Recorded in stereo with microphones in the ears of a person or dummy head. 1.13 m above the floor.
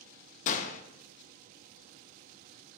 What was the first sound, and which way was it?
A gunshot, 50° left (ahead or behind).